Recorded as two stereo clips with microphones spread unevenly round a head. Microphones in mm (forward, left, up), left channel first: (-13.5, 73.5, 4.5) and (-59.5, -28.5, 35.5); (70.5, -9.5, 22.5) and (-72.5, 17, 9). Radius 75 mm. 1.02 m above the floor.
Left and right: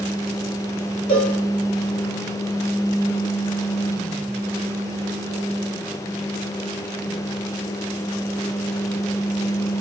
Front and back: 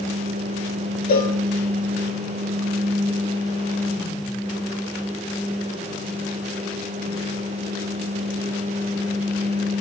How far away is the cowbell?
About 1.6 m.